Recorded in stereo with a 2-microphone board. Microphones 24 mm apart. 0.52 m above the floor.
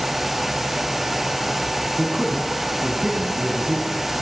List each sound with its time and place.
2.0 s a man speaking: 30° right (ahead or behind), 4.5 m; by 4.0 s 55° right (ahead or behind), 3.5 m